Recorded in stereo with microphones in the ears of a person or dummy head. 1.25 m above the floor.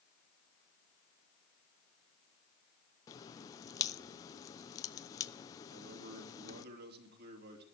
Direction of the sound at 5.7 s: 55° right (ahead or behind).